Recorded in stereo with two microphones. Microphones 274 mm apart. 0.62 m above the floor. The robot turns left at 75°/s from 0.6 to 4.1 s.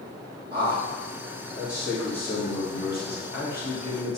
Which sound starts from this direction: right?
A man speaking, at 0.5 s.